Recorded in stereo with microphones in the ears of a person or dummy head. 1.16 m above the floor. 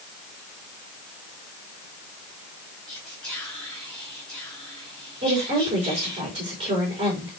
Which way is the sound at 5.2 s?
30° right (ahead or behind).